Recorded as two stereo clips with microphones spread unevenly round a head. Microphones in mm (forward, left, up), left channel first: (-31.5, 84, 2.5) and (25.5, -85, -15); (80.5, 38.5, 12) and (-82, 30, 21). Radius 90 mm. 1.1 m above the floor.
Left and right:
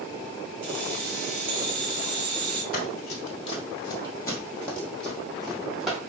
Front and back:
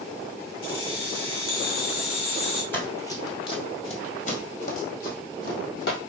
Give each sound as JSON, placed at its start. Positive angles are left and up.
{"t": 0.6, "sound": "keys jangling", "azimuth_deg": -25, "distance_m": 2.0}
{"t": 2.7, "sound": "running footsteps", "azimuth_deg": 80, "distance_m": 1.7}